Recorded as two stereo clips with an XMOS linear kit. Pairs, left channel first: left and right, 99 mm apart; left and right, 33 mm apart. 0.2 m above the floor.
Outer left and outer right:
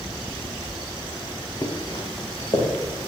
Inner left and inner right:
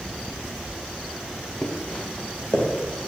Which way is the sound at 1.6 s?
30° left (ahead or behind).